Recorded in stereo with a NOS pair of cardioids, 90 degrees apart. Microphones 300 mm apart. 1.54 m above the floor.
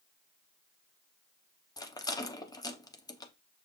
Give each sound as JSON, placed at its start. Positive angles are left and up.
{"t": 1.8, "sound": "a rattle", "azimuth_deg": 15, "distance_m": 0.8}